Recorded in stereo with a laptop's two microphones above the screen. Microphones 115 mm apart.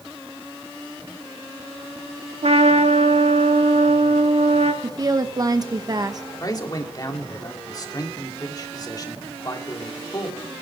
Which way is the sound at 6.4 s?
35° left (ahead or behind).